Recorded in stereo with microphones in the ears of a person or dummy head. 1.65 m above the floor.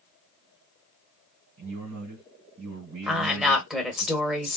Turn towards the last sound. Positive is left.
turn(degrees=0)  # may be behind; listen again after turning